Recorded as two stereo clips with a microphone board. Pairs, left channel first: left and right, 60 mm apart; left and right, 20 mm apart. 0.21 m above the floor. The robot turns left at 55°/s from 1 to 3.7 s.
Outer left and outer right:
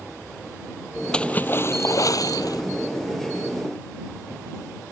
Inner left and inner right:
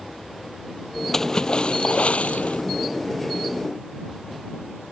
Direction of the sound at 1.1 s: 165° left.